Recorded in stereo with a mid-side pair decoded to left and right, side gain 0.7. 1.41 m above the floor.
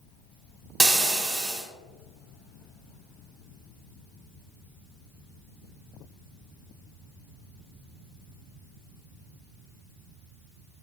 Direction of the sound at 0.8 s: 15° right.